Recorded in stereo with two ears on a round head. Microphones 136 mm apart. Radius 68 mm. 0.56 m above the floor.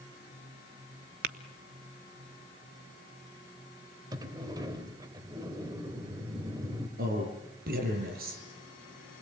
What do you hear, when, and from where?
1.2 s tapping: 65° right (ahead or behind), 1.1 m
4.1 s a sliding door: 25° right (ahead or behind), 2.5 m
7.0 s a man speaking: 65° right (ahead or behind), 8.5 m